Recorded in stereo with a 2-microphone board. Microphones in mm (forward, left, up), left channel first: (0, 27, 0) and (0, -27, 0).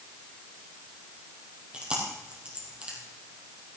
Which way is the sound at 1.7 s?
20° right (ahead or behind).